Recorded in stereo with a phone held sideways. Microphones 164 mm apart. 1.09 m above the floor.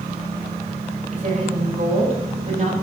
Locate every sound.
1.1 s a woman speaking: 40° right (ahead or behind), 4.5 m